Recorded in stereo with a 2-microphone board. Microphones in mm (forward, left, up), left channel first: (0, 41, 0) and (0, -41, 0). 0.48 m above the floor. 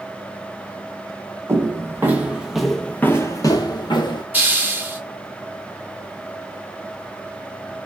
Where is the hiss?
20° right (ahead or behind), 0.7 m.